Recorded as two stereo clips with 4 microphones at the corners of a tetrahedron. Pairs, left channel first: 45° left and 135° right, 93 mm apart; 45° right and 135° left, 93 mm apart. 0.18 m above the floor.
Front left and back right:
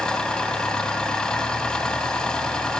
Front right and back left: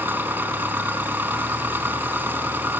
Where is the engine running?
115° left, 1.2 m.